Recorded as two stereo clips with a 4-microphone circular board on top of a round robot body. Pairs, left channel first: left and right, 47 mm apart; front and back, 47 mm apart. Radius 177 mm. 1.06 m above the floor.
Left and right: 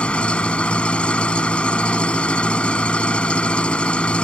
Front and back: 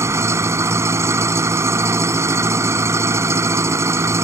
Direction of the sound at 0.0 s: 160° left.